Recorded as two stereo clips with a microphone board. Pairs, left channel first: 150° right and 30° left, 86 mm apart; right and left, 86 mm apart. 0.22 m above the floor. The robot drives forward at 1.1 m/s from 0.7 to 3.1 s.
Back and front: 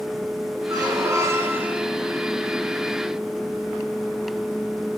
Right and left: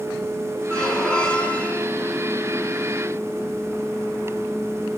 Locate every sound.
0.7 s a squeak: 10° right, 1.8 m; by 1.9 s 40° right, 0.8 m